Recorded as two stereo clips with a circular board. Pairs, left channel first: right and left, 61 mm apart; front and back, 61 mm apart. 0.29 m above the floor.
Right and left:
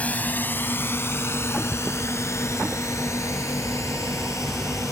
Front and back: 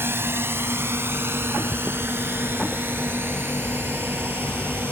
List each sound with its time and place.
0.0 s a drone: 145° right; by 4.9 s 125° right